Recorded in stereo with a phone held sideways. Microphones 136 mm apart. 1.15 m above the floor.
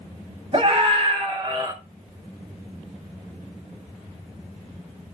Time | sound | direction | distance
0.5 | a scream | 40° right (ahead or behind) | 3 m